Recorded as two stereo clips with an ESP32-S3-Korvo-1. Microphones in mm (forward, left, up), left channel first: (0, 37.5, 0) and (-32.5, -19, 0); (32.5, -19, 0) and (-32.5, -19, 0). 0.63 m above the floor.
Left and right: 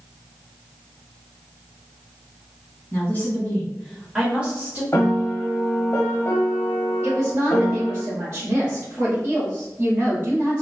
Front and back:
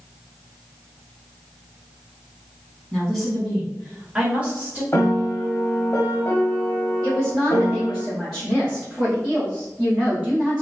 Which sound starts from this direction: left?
A woman speaking, at 2.9 s.